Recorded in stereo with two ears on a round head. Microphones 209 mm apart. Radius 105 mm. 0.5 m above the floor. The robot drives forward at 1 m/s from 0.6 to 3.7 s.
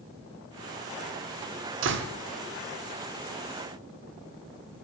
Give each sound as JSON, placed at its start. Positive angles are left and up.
{"t": 1.8, "sound": "a door slam", "side_deg": -60, "distance_m": 0.7}